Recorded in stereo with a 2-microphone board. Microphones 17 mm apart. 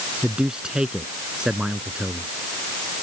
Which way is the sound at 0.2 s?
55° right (ahead or behind).